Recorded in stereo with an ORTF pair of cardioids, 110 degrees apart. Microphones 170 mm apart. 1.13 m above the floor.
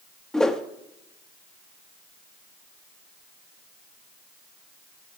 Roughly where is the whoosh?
Ahead.